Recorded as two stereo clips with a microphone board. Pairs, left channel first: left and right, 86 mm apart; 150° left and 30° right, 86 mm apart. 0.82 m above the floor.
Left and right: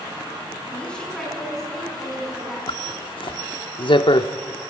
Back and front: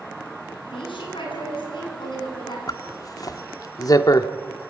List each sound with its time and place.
0.7 s a woman speaking: 165° left, 8.5 m; by 2.6 s 175° right, 8 m
2.7 s a zipper: 105° left, 1.0 m